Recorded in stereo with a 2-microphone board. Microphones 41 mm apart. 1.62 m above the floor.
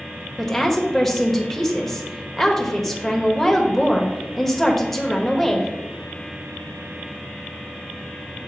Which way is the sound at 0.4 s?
5° left (ahead or behind).